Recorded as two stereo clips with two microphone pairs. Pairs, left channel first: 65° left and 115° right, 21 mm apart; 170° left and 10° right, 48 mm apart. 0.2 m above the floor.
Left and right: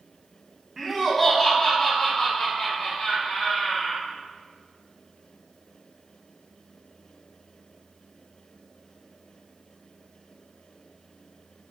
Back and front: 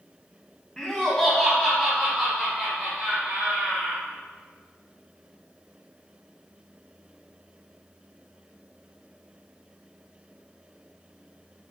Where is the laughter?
155° right, 1.0 m; by 4.0 s 50° left, 1.8 m.